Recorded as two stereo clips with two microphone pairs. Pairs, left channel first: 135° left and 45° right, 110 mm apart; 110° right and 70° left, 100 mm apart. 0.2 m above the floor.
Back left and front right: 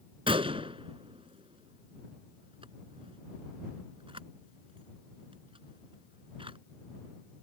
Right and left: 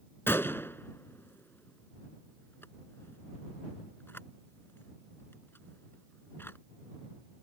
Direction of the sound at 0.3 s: 50° right.